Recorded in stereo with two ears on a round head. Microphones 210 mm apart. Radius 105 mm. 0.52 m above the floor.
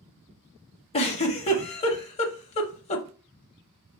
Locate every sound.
0.9 s a giggle: 25° left (ahead or behind), 0.7 m